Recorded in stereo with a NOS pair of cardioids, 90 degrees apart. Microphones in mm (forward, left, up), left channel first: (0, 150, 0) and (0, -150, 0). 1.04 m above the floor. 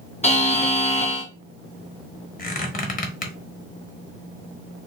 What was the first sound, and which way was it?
A buzzer, 20° left.